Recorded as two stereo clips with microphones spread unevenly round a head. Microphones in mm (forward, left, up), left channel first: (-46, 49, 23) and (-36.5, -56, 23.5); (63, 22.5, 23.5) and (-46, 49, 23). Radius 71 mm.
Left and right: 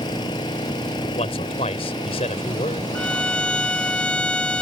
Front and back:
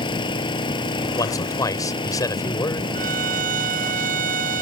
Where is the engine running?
35° left.